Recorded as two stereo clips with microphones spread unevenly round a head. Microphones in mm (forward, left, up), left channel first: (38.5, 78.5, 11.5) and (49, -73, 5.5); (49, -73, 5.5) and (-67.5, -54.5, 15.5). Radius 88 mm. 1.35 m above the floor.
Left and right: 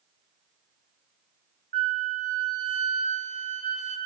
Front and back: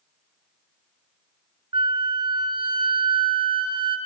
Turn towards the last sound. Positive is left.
turn(degrees=-135)